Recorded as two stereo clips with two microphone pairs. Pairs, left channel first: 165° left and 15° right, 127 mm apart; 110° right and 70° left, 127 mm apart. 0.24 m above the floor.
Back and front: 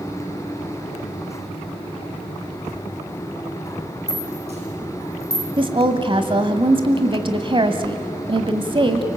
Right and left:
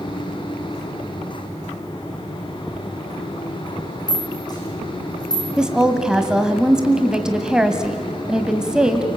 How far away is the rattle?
About 10 m.